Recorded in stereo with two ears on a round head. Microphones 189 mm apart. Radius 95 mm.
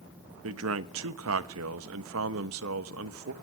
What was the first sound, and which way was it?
A man speaking, 75° right (ahead or behind).